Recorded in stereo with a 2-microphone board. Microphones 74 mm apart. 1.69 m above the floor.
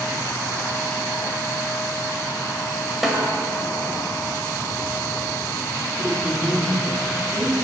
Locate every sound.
3.0 s a snare drum: 5° right (ahead or behind), 1.5 m
6.0 s a woman speaking: 55° right (ahead or behind), 3.5 m